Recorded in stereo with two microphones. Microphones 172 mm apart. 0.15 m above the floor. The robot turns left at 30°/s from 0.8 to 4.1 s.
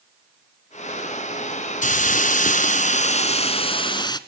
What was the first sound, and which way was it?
A hiss, 100° left.